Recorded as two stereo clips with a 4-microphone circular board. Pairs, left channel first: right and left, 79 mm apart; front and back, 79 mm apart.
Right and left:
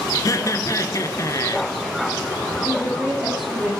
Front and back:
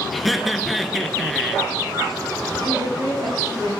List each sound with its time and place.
0.1 s laughter: 90° right, 1.5 m
2.6 s a woman speaking: 170° left, 6.5 m